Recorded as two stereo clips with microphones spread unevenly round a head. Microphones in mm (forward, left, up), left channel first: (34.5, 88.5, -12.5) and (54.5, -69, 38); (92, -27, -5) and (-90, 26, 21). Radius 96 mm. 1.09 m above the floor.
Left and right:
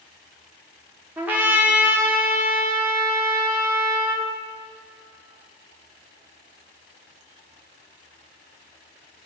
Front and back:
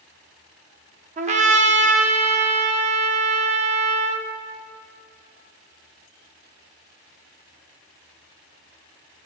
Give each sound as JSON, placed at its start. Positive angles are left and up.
{"t": 1.2, "sound": "a trumpet", "azimuth_deg": -150, "distance_m": 0.9}